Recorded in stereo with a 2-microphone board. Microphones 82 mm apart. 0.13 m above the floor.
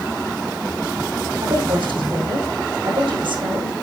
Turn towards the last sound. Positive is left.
turn(degrees=-70)  # may be behind; listen again after turning